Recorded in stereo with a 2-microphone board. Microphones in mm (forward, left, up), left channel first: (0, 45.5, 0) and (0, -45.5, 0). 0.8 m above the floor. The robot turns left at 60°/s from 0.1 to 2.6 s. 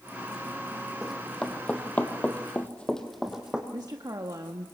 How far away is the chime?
No chime in this recording.